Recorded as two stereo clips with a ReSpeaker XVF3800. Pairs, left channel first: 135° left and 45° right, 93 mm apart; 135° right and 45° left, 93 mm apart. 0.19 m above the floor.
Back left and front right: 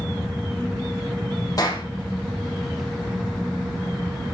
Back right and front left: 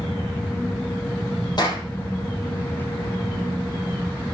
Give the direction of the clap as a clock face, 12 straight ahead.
6 o'clock.